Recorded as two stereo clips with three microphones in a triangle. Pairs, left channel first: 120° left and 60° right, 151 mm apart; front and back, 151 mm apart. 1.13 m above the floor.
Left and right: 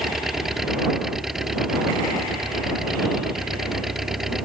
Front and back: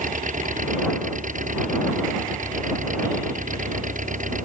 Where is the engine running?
145° right.